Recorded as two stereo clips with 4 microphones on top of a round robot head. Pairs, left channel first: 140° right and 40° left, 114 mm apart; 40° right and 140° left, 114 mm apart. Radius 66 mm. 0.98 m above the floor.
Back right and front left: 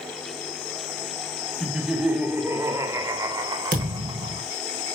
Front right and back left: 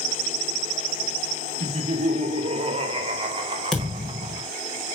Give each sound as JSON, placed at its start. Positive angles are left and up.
{"t": 1.6, "sound": "laughter", "azimuth_deg": 125, "distance_m": 1.3}
{"t": 3.7, "sound": "a thud", "azimuth_deg": 50, "distance_m": 3.0}